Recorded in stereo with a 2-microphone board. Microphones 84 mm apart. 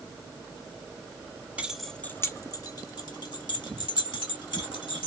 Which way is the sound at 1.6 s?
15° right (ahead or behind).